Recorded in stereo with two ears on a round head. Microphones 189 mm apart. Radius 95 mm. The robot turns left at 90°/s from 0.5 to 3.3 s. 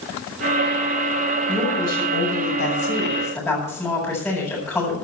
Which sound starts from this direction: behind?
A woman speaking, at 1.5 s.